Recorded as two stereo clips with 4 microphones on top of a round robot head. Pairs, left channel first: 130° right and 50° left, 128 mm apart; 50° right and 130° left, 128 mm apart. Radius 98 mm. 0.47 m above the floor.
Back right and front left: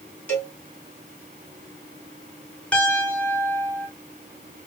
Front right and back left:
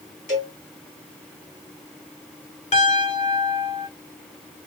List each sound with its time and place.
0.3 s a cowbell: 50° right, 3 m
2.7 s a piano: 50° right, 2 m